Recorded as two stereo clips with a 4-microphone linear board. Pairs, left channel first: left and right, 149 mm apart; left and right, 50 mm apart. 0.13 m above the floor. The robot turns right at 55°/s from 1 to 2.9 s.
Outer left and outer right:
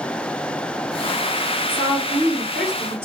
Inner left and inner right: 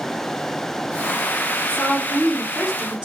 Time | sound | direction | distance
1.7 | a woman speaking | 135° left | 2 m